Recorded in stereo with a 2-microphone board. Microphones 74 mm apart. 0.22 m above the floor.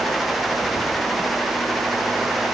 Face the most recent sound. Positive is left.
No sound to turn to.